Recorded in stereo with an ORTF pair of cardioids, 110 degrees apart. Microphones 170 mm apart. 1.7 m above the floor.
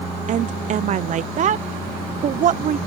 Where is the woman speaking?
50° right.